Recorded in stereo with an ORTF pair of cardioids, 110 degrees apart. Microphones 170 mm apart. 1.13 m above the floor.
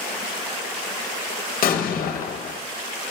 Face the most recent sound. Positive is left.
turn(degrees=60)